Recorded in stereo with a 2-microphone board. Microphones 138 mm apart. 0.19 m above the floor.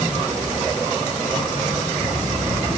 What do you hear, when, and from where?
Only background noise.